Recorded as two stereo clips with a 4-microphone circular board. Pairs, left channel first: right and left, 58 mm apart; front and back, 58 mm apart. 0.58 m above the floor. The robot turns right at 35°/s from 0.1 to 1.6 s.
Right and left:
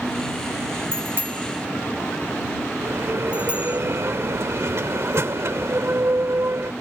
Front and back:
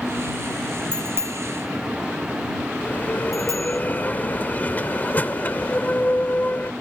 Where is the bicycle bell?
135° left; by 3.8 s 160° left.